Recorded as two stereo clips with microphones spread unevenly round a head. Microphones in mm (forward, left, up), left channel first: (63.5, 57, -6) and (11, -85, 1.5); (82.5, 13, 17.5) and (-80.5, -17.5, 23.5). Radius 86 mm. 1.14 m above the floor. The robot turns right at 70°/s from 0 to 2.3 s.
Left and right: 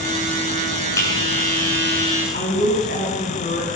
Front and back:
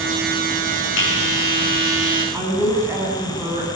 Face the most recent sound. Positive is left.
turn(degrees=115)